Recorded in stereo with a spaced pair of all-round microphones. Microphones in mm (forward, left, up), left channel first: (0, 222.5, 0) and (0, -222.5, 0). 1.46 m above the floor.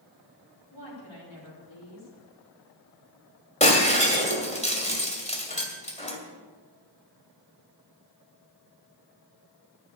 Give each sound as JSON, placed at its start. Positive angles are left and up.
{"t": 0.7, "sound": "a woman speaking", "side_deg": 85, "distance_m": 4.5}
{"t": 3.6, "sound": "breaking glass", "side_deg": 15, "distance_m": 2.0}